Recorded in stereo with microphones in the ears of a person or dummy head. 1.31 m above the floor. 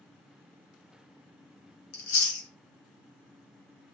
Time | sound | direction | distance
1.9 | chewing | 50° left (ahead or behind) | 1.0 m